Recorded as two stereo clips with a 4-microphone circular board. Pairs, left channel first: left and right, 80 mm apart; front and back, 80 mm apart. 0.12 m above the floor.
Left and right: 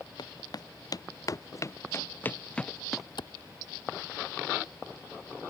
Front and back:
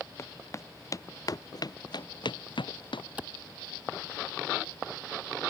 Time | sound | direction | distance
0.2 | footsteps | 55° left | ?
3.2 | a clap | 105° left | ?